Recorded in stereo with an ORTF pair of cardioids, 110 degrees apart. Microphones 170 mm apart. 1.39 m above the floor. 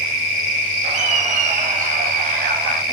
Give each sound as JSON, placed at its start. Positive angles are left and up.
{"t": 0.8, "sound": "laughter", "azimuth_deg": -45, "distance_m": 7.5}